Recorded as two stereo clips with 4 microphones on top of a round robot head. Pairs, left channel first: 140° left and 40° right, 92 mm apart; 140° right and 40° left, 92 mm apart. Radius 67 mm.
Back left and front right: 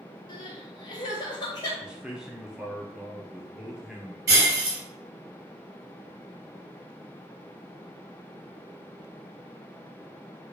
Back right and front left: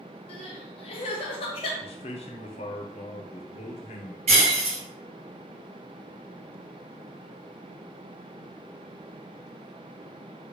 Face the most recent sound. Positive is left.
turn(degrees=15)